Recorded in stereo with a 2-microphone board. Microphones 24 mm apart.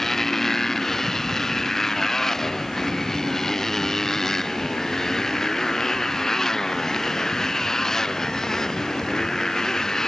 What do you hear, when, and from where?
0.0 s a motorcycle: 20° left (ahead or behind); by 10.1 s 25° left (ahead or behind)